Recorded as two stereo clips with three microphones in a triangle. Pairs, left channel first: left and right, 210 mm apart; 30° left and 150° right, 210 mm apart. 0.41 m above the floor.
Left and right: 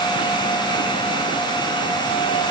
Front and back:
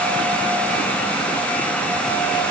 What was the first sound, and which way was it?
Only background noise.